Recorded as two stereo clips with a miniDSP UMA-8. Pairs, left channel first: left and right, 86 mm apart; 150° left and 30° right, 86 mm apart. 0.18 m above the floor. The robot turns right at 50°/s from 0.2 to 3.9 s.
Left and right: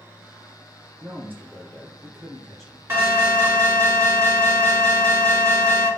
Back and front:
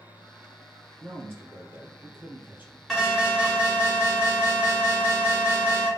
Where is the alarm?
125° right, 1.6 m; by 5.9 s 75° right, 1.6 m.